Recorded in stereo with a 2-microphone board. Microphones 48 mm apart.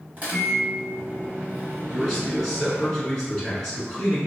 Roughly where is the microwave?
Right.